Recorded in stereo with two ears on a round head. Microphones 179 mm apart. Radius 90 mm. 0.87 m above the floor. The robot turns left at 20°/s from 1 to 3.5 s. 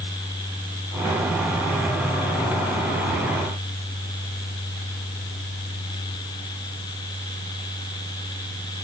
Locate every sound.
Only background noise.